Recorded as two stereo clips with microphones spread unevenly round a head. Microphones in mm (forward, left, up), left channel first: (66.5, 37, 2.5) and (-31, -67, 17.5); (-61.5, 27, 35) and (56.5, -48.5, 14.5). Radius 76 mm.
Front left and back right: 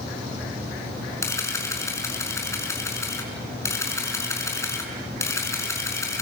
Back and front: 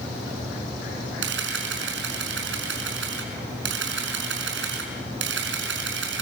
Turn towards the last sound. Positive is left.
turn(degrees=-25)